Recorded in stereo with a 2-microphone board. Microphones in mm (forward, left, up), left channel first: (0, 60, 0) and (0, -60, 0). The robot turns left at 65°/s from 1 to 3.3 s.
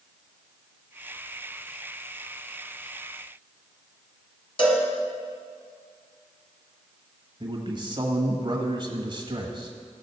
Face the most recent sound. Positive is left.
turn(degrees=-40)  # may be behind; listen again after turning